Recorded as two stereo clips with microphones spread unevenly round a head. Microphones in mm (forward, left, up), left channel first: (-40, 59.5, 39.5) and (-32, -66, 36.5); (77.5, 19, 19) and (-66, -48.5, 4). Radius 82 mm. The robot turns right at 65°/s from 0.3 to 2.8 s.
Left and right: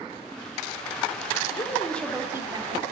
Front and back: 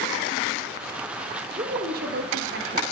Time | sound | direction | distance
1.5 | a woman speaking | 145° left | 3 m